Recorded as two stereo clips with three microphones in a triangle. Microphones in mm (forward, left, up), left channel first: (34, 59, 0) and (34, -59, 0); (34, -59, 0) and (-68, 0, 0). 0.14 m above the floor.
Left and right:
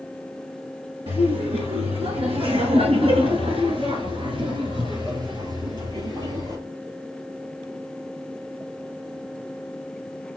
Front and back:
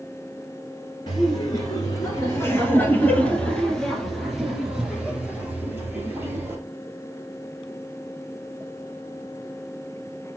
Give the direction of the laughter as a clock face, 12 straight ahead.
2 o'clock.